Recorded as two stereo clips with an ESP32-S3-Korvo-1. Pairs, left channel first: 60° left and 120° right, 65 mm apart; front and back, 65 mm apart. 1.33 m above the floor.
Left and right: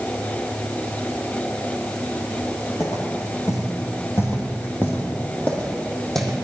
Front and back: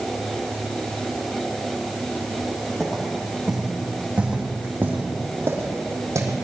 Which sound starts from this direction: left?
Footsteps, at 2.8 s.